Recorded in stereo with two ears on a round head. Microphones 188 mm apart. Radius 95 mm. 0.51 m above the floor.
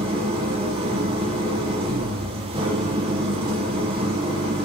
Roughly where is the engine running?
Right.